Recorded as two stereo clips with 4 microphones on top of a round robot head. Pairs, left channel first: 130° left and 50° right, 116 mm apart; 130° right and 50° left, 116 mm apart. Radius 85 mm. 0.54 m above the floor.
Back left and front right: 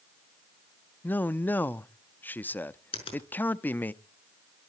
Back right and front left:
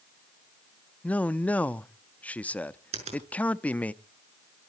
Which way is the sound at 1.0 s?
175° left.